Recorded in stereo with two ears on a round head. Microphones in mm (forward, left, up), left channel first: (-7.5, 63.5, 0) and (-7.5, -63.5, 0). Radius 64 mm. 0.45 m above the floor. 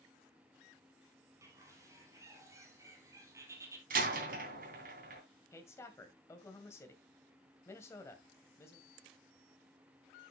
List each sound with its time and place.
1.4 s a bird: 20° right (ahead or behind), 3 m
3.9 s a door slam: 70° right (ahead or behind), 3 m
5.5 s a woman speaking: 20° left (ahead or behind), 2 m